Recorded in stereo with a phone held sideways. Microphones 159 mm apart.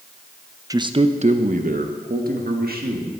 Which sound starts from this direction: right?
A man speaking, at 0.7 s.